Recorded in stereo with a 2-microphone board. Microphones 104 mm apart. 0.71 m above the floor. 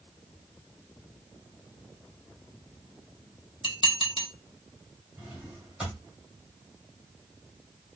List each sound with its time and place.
3.6 s dishes clattering: 50° left (ahead or behind), 0.9 m
5.2 s a drawer: 15° right (ahead or behind), 1.9 m